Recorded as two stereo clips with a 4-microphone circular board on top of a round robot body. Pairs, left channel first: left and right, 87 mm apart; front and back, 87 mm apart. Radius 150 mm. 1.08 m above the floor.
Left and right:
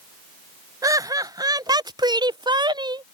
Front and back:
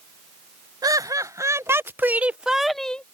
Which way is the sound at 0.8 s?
135° right.